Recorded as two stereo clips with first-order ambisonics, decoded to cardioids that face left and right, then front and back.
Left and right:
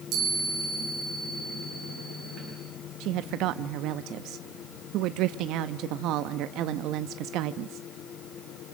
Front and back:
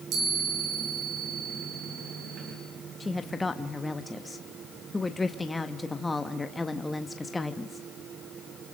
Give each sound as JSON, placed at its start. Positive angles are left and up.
{"t": 0.1, "sound": "a chime", "azimuth_deg": -140, "distance_m": 10.0}
{"t": 3.0, "sound": "a woman speaking", "azimuth_deg": -80, "distance_m": 0.6}